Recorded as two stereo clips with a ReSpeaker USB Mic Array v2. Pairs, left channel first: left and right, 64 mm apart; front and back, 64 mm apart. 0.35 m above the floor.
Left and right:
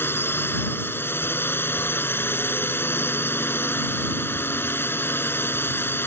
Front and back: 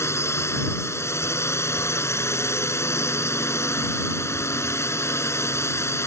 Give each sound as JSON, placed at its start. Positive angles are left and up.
{"t": 0.0, "sound": "a drone", "azimuth_deg": 40}